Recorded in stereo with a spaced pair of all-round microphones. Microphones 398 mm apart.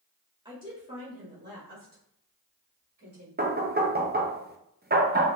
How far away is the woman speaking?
About 2.5 m.